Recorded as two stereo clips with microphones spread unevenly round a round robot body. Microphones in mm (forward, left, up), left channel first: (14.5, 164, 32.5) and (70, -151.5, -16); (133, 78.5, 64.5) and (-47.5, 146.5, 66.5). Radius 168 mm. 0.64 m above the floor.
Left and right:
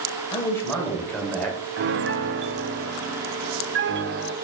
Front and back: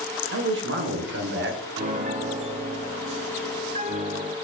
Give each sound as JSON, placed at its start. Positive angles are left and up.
{"t": 0.3, "sound": "a man speaking", "azimuth_deg": -175, "distance_m": 2.5}
{"t": 1.8, "sound": "a piano", "azimuth_deg": -135, "distance_m": 0.7}